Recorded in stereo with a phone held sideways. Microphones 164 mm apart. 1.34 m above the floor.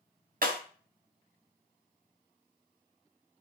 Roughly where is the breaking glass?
Right.